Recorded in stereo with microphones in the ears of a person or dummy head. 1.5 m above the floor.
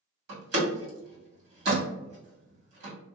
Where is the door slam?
70° right (ahead or behind), 1.7 m.